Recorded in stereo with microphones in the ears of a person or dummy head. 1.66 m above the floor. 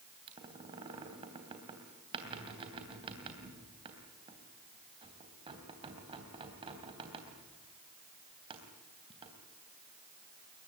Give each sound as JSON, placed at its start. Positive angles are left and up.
{"t": 0.3, "sound": "a squeak", "side_deg": -30, "distance_m": 3.0}